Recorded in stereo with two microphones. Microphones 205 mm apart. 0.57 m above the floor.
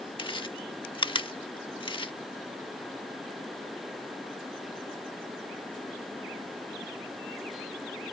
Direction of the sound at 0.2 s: 25° left (ahead or behind).